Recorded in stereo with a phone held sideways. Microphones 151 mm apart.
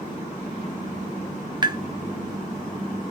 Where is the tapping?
30° right (ahead or behind), 0.5 m.